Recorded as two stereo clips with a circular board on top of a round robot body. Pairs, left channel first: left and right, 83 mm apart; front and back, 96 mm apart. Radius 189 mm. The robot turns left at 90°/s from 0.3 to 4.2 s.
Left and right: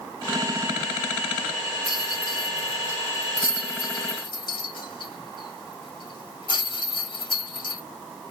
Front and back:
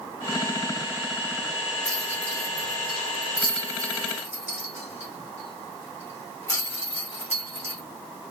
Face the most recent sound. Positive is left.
turn(degrees=110)